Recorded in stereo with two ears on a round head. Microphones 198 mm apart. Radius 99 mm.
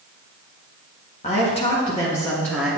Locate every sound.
1.2 s a woman speaking: 35° left (ahead or behind), 1.7 m; by 2.8 s centre (ahead or behind), 1.7 m